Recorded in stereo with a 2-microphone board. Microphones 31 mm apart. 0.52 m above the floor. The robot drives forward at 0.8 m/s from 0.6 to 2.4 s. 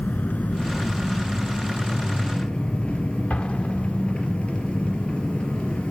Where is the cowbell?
No cowbell in this recording.